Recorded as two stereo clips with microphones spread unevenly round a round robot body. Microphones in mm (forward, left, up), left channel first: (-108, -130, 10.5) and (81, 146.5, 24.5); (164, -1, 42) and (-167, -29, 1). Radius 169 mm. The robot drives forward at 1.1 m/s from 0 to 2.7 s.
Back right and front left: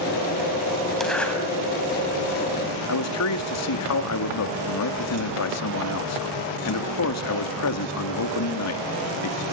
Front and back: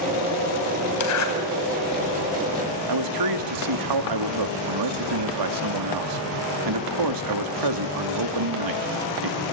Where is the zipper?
35° right, 4.5 m; by 1.3 s 40° right, 4 m.